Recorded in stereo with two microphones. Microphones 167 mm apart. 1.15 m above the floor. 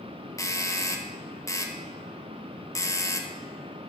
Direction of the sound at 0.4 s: 20° left (ahead or behind).